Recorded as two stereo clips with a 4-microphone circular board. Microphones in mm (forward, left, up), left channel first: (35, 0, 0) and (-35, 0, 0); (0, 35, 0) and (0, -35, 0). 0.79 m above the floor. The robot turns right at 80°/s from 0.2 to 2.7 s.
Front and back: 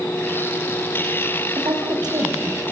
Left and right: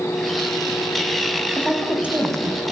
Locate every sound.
1.6 s a woman speaking: 155° left, 4.5 m; by 2.6 s 120° right, 4.5 m